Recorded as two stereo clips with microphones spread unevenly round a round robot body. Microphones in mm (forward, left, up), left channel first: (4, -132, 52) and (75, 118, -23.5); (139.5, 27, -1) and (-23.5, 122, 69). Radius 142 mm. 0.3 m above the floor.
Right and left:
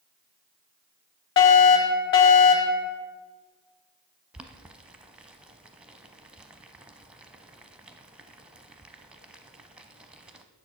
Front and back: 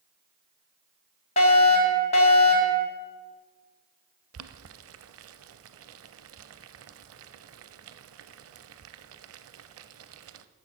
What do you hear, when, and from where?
1.4 s a fire alarm: 55° right, 3.5 m
4.3 s boiling: 155° left, 0.6 m